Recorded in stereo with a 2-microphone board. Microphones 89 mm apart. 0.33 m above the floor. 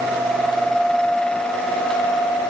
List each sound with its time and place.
Only background noise.